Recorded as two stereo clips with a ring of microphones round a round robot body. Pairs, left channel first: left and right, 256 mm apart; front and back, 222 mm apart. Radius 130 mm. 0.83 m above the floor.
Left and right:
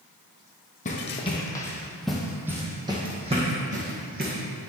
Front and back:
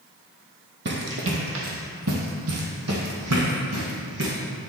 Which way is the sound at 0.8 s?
150° left.